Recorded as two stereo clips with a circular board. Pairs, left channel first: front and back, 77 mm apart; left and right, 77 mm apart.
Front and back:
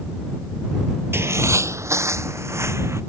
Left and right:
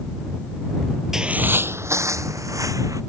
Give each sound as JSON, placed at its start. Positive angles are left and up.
{"t": 1.1, "sound": "footsteps", "azimuth_deg": -165}